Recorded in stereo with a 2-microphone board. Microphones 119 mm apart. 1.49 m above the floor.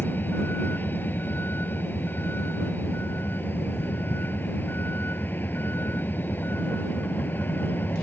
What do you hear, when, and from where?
0.0 s a vehicle: 15° left (ahead or behind)